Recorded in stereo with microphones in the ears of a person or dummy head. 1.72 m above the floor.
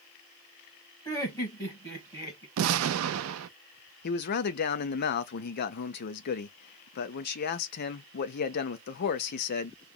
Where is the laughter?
20° left (ahead or behind), 1.4 m.